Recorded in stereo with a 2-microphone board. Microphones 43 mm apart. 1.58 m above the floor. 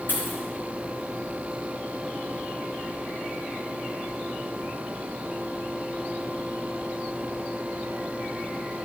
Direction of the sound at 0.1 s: 55° left (ahead or behind).